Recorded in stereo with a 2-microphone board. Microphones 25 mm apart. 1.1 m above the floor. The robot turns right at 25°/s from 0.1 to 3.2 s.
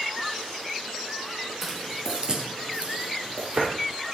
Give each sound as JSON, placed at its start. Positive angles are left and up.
{"t": 1.6, "sound": "footsteps", "side_deg": -10, "distance_m": 1.5}